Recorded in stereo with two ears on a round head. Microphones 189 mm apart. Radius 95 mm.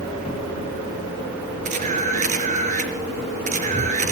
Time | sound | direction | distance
1.6 | a camera shutter | 35° right (ahead or behind) | 4.5 m